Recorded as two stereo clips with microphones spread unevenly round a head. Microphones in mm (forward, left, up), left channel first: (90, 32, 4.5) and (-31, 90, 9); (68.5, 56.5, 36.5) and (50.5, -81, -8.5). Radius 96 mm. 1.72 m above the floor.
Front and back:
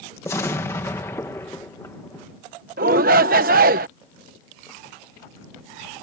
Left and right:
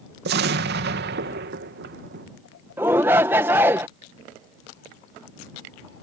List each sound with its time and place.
0.2 s an explosion: 100° right
2.8 s a shout: 175° left